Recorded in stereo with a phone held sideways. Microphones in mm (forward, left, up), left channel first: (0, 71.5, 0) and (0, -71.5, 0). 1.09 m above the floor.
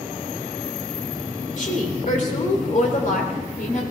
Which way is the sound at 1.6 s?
65° left (ahead or behind).